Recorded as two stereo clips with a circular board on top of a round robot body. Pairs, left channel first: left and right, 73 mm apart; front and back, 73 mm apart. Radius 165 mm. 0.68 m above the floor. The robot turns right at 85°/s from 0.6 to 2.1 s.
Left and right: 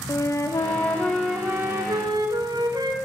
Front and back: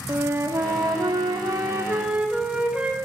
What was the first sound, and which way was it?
A flute, 130° left.